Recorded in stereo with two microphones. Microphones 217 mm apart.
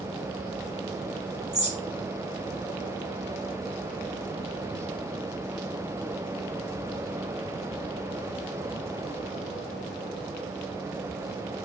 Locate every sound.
1.5 s a bird: 30° right (ahead or behind), 0.8 m